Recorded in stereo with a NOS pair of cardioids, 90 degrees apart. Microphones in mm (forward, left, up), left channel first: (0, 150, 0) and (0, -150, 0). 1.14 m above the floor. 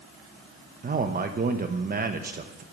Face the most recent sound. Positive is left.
turn(degrees=-30)